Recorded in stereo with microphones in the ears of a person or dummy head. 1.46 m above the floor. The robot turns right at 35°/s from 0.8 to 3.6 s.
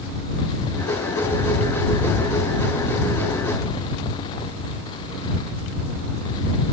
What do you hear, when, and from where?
Only background noise.